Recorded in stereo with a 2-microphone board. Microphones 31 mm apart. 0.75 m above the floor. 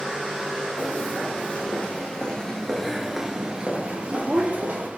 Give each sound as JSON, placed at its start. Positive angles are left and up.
{"t": 0.8, "sound": "footsteps", "side_deg": 65, "distance_m": 1.7}